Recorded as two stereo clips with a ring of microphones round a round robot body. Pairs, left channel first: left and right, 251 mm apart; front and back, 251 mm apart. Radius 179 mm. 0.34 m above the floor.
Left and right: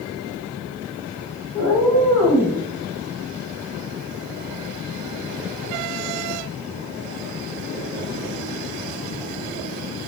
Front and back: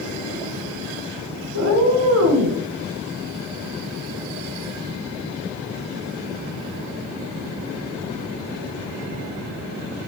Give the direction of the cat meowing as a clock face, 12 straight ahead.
6 o'clock.